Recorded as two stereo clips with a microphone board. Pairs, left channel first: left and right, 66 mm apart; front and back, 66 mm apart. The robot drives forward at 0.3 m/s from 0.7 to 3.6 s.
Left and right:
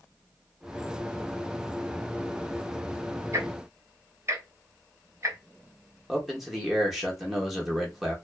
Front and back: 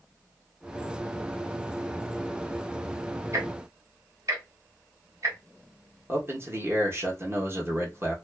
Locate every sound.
3.3 s ticking: 135° right, 0.7 m; by 5.4 s 140° right, 0.7 m
6.1 s a man speaking: 175° right, 0.8 m